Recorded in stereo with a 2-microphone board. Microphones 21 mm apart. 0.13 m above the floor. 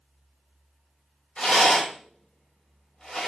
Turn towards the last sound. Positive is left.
turn(degrees=55)  # may be behind; listen again after turning